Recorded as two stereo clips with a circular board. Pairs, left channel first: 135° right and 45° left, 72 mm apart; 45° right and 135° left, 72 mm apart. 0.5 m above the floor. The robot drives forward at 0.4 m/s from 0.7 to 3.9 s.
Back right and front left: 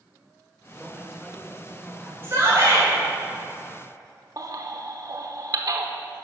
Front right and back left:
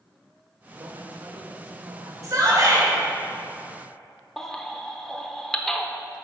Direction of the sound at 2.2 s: 95° left.